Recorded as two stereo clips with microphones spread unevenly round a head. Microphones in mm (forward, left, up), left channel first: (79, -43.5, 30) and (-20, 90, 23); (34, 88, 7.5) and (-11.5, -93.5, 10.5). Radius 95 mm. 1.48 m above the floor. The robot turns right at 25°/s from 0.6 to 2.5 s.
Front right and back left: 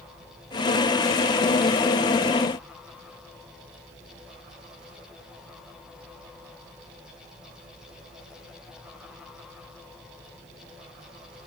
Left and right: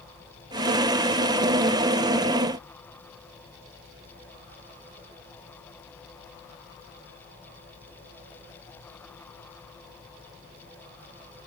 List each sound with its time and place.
Only background noise.